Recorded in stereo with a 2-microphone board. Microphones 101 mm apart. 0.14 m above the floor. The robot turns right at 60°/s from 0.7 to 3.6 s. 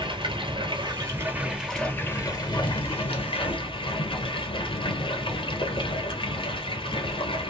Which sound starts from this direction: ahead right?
Running water, at 0.0 s.